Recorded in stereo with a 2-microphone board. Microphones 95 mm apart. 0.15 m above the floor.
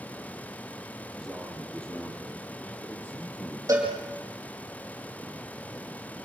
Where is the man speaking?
5° left (ahead or behind), 4 m; by 3.6 s 20° left (ahead or behind), 5 m.